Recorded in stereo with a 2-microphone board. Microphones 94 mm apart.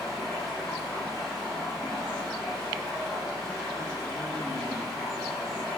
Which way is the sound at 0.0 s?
Centre (ahead or behind).